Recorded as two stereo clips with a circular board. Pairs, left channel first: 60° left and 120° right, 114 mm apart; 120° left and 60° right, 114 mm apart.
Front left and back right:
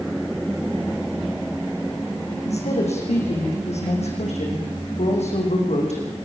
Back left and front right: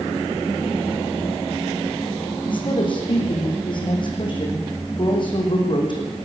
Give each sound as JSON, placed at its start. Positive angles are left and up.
{"t": 2.4, "sound": "a woman speaking", "azimuth_deg": 75, "distance_m": 8.5}